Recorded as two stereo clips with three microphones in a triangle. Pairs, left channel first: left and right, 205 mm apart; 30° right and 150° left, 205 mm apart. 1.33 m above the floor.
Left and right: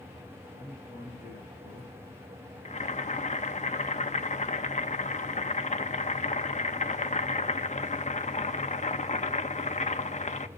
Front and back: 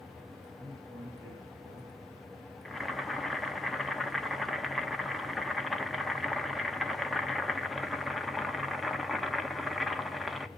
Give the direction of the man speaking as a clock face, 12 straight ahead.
7 o'clock.